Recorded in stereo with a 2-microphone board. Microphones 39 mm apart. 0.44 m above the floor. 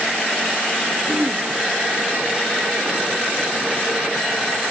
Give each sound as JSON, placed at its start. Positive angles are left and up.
{"t": 1.1, "sound": "throat clearing", "side_deg": -25, "distance_m": 1.6}